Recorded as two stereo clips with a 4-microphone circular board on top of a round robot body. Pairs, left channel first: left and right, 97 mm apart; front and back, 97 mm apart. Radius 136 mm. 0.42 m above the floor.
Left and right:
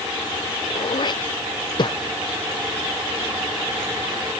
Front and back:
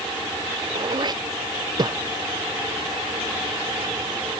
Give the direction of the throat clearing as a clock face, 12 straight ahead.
8 o'clock.